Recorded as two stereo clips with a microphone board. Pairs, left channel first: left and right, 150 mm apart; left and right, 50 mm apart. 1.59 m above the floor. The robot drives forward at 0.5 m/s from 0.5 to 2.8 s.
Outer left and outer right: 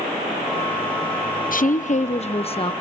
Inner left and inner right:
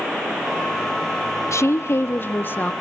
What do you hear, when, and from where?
1.5 s a woman speaking: 65° left (ahead or behind), 0.7 m; by 2.7 s 35° left (ahead or behind), 1.1 m